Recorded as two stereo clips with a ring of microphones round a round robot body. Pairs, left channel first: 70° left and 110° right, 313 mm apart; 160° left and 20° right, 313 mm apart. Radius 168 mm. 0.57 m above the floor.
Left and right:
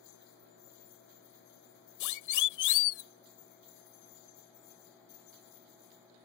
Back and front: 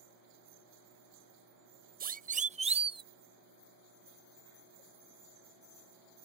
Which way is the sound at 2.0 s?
40° left.